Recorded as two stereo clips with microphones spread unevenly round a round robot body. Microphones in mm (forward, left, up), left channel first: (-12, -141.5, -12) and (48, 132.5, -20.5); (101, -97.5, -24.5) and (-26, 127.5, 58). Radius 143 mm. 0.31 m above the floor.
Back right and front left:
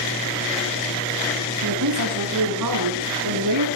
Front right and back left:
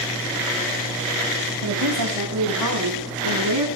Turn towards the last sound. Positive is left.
turn(degrees=100)